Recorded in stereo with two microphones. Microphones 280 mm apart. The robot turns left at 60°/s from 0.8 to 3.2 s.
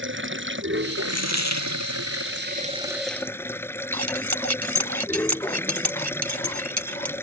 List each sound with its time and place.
0.0 s running water: 45° right; by 7.2 s 170° left
1.1 s a dropped coin: 115° left; by 1.8 s 75° left
3.9 s cutlery clinking: 75° right (ahead or behind)